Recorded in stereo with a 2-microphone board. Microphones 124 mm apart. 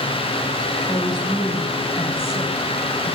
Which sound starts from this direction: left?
A woman speaking, at 0.8 s.